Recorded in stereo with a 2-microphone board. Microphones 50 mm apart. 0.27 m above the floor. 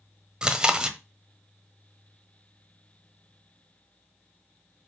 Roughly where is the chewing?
Centre.